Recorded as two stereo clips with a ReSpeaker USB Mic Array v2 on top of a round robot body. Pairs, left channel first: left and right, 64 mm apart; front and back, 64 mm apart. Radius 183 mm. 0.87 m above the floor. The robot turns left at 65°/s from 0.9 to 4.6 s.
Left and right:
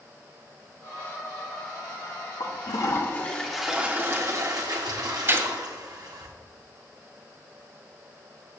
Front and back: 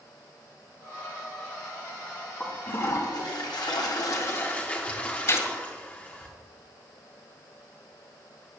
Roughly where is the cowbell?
I don't hear a cowbell.